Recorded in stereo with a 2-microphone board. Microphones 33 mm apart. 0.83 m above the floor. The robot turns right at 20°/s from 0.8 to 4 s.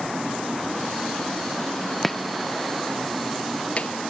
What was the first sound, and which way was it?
Chopping, 5° left (ahead or behind).